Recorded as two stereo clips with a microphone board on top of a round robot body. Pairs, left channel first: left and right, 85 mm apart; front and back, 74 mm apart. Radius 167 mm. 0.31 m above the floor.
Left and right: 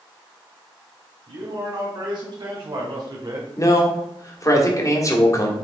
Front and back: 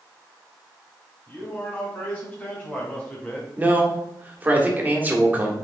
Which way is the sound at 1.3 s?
60° right.